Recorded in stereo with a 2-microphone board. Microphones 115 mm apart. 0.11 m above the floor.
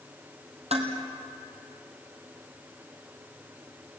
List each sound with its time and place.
0.7 s dishes clattering: 65° right (ahead or behind), 2.5 m